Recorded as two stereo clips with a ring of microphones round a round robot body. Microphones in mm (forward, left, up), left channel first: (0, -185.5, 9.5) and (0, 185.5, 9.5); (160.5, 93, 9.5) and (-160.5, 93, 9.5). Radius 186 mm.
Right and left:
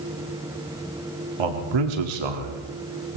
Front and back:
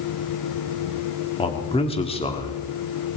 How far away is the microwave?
I don't hear a microwave.